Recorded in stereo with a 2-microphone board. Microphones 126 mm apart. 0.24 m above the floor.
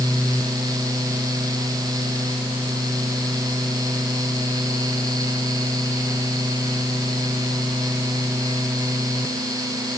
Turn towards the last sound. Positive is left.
No sound to turn to.